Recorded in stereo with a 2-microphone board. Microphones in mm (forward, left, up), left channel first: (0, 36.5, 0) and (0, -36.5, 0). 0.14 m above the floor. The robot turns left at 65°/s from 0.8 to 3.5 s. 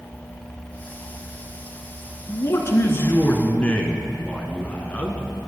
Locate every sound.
2.3 s a man speaking: 115° left, 1.6 m; by 5.3 s 35° left, 1.6 m